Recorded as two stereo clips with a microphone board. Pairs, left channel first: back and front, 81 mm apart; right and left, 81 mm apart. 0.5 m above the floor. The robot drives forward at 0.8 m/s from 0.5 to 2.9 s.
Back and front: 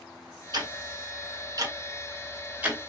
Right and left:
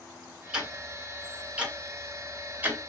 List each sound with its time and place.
0.5 s ticking: 10° left, 2.5 m; by 2.9 s 70° left, 1.1 m